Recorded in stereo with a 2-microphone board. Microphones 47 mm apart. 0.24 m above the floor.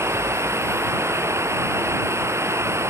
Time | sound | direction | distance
0.0 | running water | 85° right | ?